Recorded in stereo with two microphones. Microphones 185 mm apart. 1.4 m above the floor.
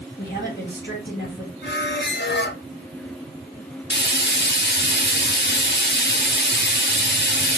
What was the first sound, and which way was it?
A woman speaking, 75° left (ahead or behind).